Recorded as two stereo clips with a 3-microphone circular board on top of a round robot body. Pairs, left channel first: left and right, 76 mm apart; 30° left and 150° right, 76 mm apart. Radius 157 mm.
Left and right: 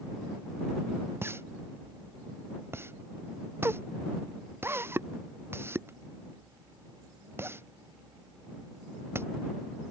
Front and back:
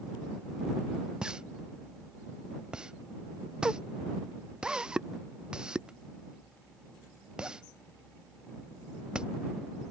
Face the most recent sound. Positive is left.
turn(degrees=-85)